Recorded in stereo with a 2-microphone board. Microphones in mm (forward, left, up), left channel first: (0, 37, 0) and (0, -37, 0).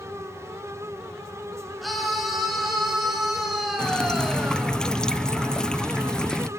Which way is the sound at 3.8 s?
10° left (ahead or behind).